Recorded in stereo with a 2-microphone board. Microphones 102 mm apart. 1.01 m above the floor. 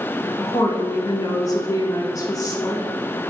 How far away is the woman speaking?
About 0.5 m.